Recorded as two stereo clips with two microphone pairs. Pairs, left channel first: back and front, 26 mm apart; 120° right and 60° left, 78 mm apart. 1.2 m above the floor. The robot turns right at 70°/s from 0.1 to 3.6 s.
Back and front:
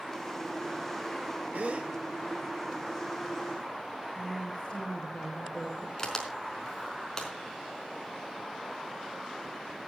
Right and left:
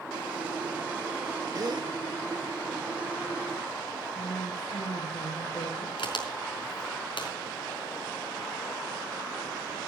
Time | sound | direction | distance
1.5 | a gasp | 20° left | 1.7 m
4.2 | a woman speaking | 110° right | 5 m
6.0 | a crack | 110° right | 4.5 m